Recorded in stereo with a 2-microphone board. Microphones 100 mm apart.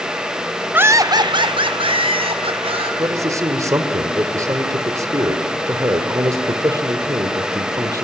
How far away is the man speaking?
About 1.9 m.